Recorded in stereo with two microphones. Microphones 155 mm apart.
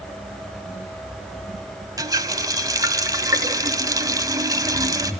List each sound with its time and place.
2.0 s a running tap: 25° right (ahead or behind), 1.7 m